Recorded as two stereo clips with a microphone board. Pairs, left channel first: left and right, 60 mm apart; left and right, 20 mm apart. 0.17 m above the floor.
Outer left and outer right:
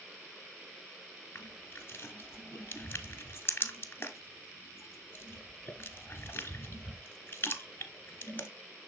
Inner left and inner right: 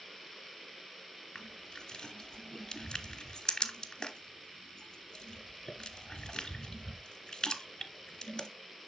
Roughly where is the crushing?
Left.